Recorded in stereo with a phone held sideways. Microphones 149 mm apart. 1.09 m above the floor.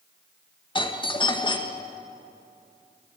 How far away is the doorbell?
About 1.9 m.